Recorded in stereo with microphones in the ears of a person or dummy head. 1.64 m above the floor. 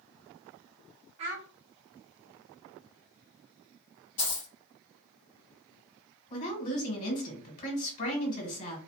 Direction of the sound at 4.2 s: 25° left (ahead or behind).